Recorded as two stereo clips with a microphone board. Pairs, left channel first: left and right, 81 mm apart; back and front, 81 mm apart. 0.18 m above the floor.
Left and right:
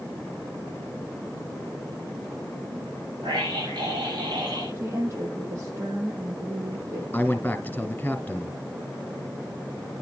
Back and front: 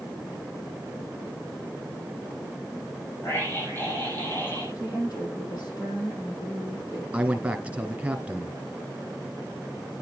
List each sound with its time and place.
3.2 s a scream: 120° right, 8.5 m
4.8 s a woman speaking: 145° right, 7 m
7.1 s a man speaking: 55° left, 1.6 m